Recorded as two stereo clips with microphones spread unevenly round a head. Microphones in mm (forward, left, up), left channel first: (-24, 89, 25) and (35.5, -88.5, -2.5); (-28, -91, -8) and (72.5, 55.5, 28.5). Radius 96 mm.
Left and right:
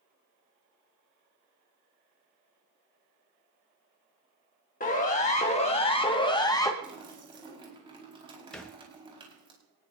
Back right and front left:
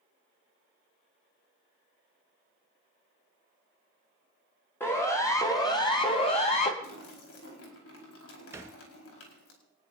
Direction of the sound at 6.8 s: 140° right.